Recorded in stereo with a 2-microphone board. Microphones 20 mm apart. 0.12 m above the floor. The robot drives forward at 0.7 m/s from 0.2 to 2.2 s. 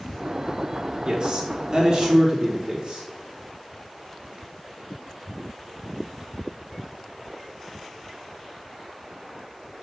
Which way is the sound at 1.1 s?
45° right (ahead or behind).